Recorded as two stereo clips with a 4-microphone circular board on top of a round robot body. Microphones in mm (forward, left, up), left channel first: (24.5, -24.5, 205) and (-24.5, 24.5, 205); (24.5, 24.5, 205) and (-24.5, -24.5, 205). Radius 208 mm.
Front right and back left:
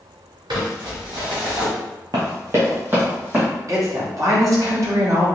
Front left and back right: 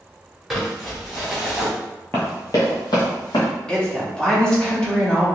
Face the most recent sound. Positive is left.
turn(degrees=120)